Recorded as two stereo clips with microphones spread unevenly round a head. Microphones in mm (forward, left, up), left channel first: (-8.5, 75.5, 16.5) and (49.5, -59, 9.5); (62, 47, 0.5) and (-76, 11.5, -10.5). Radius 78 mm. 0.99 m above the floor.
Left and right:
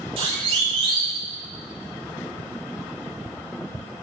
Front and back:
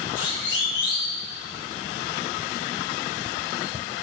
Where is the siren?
10° right, 8 m.